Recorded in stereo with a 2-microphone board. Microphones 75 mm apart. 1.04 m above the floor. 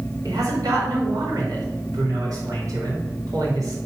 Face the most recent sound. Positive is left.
turn(degrees=-55)  # may be behind; listen again after turning